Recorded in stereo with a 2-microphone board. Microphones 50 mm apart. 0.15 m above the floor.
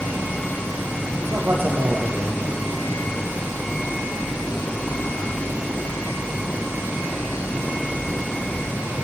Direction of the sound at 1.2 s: 50° right (ahead or behind).